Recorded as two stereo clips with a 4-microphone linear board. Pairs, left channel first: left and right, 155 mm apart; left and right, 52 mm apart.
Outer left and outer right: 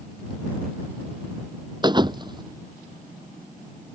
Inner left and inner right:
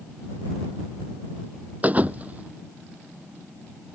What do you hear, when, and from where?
1.8 s a thud: 30° right (ahead or behind)